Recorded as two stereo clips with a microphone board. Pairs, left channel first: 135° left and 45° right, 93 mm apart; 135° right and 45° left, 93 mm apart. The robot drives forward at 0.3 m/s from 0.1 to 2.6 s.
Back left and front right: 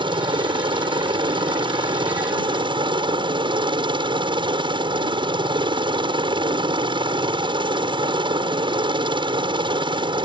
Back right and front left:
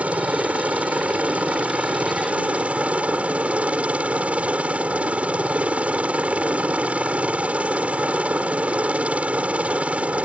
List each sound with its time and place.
0.0 s a helicopter: 30° right